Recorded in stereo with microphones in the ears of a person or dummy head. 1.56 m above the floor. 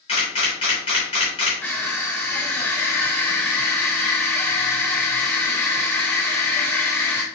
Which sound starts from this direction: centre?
Crushing, at 1.6 s.